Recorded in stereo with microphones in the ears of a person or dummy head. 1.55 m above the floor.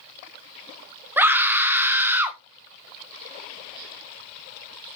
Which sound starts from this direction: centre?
A scream, at 1.2 s.